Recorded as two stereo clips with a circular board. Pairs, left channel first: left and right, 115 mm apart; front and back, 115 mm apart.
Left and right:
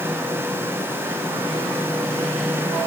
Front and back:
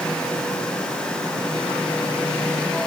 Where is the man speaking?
No man speaking in this recording.